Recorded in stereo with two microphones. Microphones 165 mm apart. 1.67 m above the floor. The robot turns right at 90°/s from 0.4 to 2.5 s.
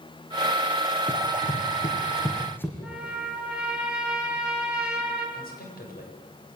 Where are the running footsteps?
30° left (ahead or behind), 3 m; by 2.7 s 15° left (ahead or behind), 4 m.